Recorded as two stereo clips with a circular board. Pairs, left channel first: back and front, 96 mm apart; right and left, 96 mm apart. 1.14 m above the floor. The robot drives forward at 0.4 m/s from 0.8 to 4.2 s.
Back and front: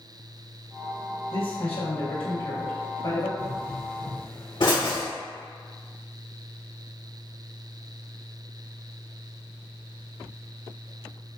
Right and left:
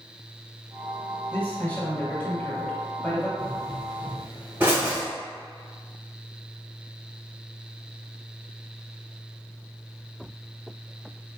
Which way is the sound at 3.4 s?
150° left.